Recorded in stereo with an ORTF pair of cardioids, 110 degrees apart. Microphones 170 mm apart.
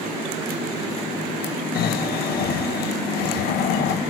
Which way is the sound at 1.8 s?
65° left.